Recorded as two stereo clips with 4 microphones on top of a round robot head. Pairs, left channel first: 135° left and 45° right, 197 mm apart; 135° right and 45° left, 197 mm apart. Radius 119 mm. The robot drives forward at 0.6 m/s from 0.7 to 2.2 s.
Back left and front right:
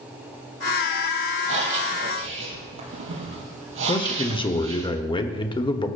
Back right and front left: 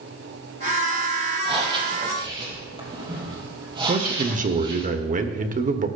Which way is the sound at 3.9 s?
75° left.